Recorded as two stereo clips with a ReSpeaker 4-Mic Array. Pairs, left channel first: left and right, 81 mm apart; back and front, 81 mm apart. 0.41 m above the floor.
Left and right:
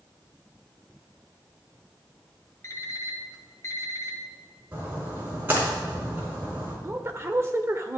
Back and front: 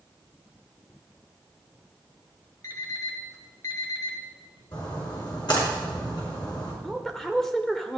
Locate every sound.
2.6 s an alarm clock: 140° left, 1.4 m
4.7 s a splash: 155° right, 4.5 m
6.8 s a woman speaking: 100° right, 1.1 m